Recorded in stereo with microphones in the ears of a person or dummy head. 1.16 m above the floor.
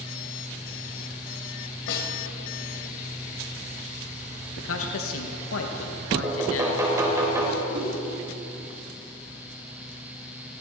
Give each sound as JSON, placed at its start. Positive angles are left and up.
{"t": 1.9, "sound": "a snare drum", "side_deg": 60, "distance_m": 3.0}
{"t": 4.6, "sound": "a man speaking", "side_deg": 70, "distance_m": 1.4}
{"t": 6.2, "sound": "knocking", "side_deg": -15, "distance_m": 3.0}
{"t": 7.7, "sound": "a whoosh", "side_deg": -70, "distance_m": 4.0}